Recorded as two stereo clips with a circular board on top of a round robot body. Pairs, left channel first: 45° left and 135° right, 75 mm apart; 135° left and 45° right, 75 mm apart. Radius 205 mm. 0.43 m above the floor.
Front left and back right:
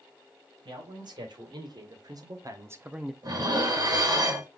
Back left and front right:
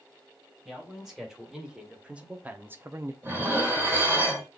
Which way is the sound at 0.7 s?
130° right.